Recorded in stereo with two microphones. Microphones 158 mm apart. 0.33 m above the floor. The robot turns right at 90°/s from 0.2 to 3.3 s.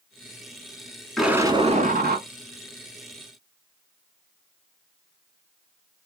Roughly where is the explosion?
Behind.